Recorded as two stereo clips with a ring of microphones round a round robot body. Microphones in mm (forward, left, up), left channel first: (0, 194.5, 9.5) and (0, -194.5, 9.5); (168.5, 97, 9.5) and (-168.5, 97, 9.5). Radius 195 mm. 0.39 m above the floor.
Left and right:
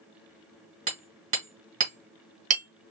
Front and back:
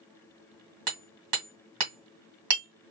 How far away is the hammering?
About 2.5 m.